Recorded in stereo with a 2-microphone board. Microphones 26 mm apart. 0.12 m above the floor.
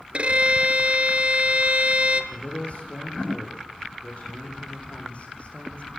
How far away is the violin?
About 1.1 m.